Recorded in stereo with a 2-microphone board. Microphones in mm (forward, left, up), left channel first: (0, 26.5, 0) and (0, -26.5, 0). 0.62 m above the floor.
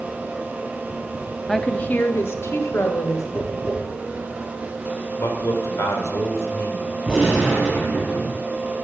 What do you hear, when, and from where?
1.5 s a woman speaking: 5° left (ahead or behind), 0.7 m; by 3.2 s 60° left (ahead or behind), 2.5 m
3.4 s tapping: 50° left (ahead or behind), 6 m
5.2 s a man speaking: 60° left (ahead or behind), 3 m
7.0 s a gunshot: 10° right (ahead or behind), 6 m